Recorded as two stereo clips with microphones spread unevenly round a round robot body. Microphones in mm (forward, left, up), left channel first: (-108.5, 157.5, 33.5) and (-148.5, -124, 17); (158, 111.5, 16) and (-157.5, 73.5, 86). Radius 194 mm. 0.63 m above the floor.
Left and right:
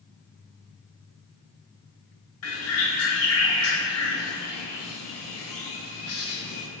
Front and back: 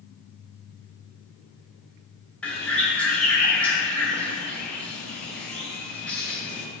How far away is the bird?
About 0.7 m.